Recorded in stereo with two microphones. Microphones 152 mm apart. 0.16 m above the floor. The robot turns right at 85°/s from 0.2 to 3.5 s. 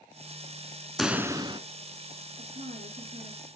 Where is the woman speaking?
105° right, 3 m; by 3.5 s 15° right, 3 m.